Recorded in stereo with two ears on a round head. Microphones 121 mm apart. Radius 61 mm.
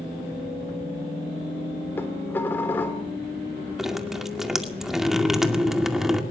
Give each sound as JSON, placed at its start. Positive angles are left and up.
{"t": 2.0, "sound": "dishes clattering", "side_deg": 15, "distance_m": 3.0}
{"t": 3.8, "sound": "dripping", "side_deg": -5, "distance_m": 2.0}